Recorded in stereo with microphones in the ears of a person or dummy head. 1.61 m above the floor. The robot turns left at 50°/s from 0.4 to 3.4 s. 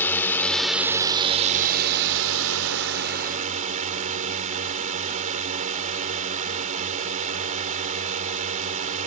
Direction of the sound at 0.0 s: 10° left.